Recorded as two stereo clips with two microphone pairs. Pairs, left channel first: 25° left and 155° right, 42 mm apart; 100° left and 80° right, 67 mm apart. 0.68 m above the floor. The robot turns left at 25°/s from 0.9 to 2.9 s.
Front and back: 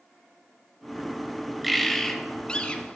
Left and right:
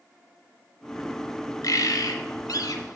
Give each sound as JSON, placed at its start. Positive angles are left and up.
{"t": 1.6, "sound": "a bird", "azimuth_deg": 120, "distance_m": 0.8}